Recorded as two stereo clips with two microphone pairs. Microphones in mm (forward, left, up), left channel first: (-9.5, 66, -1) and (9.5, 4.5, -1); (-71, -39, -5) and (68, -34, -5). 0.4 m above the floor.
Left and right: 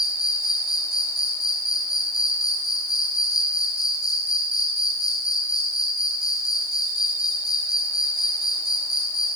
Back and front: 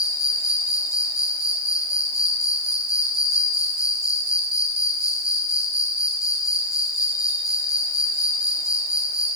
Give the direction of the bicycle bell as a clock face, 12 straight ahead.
I don't hear a bicycle bell.